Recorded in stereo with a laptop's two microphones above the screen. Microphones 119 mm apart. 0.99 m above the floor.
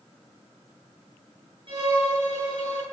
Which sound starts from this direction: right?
A violin, at 1.7 s.